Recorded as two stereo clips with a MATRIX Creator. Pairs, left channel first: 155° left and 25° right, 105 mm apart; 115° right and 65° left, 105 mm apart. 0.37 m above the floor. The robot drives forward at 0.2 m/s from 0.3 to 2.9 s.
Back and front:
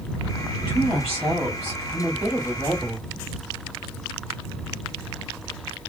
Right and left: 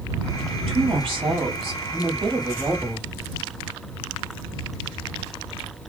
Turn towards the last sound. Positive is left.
turn(degrees=80)